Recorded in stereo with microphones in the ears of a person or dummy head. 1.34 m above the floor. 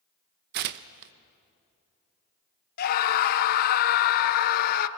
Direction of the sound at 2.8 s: 55° left (ahead or behind).